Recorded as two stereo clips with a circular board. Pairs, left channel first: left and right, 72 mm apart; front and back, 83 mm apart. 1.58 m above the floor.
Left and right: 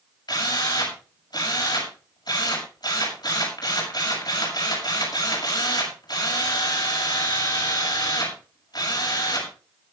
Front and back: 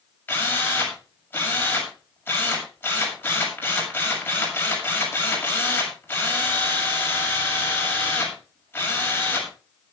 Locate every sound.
0.3 s a drill: 70° left, 7 m